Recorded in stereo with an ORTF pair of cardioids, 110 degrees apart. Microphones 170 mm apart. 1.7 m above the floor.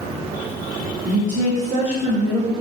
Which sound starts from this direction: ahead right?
A woman speaking, at 1.1 s.